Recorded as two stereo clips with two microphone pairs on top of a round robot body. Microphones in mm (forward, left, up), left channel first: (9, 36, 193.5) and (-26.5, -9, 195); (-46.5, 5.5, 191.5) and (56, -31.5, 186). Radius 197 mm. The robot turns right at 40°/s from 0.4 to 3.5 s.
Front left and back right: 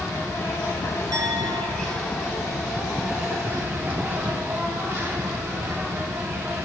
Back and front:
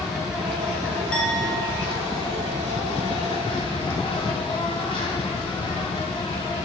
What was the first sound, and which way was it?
An insect, 65° left.